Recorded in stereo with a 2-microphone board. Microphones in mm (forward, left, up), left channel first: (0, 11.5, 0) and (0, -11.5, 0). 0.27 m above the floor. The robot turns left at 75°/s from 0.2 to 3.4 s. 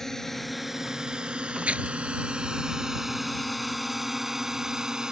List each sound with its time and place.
0.0 s a drone: 15° left (ahead or behind); by 5.1 s 30° right (ahead or behind)
1.6 s tearing paper: 75° right (ahead or behind); by 1.9 s 65° right (ahead or behind)